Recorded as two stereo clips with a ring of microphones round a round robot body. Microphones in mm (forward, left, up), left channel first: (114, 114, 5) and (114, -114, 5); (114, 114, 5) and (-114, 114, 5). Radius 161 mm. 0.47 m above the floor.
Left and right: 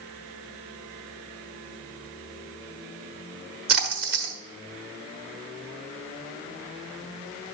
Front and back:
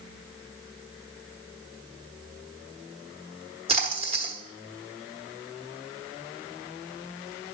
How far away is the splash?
About 1.1 m.